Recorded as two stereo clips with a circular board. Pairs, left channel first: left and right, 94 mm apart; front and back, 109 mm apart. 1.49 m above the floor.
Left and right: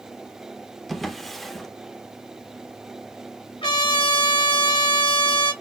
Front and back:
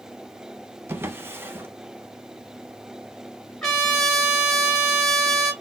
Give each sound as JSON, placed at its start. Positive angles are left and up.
{"t": 0.9, "sound": "a drawer", "azimuth_deg": 175, "distance_m": 0.6}
{"t": 3.6, "sound": "a trumpet", "azimuth_deg": 85, "distance_m": 3.0}